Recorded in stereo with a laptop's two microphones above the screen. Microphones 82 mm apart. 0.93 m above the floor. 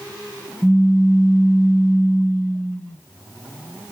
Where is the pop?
20° left (ahead or behind), 1.5 m.